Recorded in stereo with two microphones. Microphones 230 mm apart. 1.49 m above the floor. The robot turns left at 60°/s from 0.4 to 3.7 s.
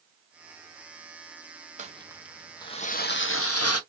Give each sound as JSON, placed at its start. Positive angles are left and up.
{"t": 1.8, "sound": "crumpling", "azimuth_deg": -145, "distance_m": 0.5}